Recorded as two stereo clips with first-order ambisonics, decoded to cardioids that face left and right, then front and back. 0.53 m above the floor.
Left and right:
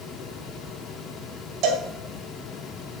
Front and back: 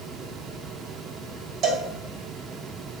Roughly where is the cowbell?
Behind right.